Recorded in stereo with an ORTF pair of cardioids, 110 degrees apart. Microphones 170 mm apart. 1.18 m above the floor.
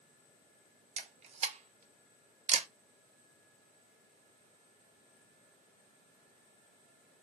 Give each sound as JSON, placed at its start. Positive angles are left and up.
{"t": 1.0, "sound": "a camera shutter", "azimuth_deg": -45, "distance_m": 0.7}